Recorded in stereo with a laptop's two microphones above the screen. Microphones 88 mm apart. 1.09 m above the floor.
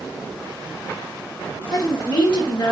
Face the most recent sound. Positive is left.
turn(degrees=65)  # may be behind; listen again after turning